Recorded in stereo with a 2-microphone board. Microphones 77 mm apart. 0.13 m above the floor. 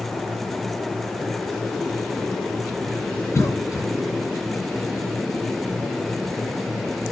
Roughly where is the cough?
Left.